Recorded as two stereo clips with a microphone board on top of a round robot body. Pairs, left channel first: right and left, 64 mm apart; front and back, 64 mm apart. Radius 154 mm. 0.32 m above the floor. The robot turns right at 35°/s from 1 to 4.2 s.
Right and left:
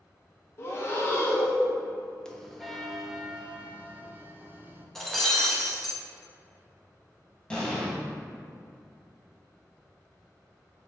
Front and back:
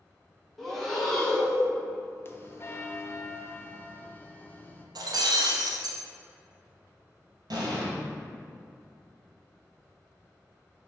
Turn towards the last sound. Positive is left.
turn(degrees=-165)